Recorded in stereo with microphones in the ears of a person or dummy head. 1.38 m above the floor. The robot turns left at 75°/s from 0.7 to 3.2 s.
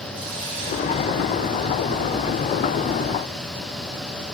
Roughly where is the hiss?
Ahead right.